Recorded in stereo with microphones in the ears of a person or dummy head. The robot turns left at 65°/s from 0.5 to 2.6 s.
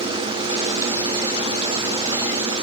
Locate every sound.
Only background noise.